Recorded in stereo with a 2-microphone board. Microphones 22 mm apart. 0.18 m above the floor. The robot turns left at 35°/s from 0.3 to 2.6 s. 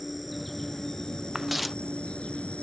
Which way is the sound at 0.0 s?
175° left.